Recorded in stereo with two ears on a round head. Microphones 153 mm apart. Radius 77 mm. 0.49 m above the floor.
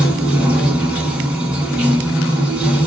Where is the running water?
10° right (ahead or behind), 1.3 m.